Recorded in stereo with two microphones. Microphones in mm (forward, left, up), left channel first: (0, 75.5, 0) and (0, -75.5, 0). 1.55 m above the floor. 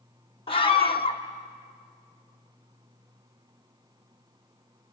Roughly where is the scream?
Left.